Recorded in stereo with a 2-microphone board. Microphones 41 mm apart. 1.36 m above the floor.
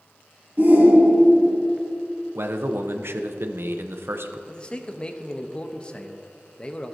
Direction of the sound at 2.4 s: 75° right (ahead or behind).